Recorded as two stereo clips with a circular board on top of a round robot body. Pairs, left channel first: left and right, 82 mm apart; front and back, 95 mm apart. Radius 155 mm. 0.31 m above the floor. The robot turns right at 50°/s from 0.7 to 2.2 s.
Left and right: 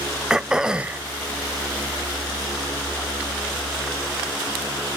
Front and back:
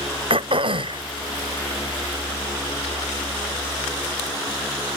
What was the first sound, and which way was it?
Throat clearing, 170° right.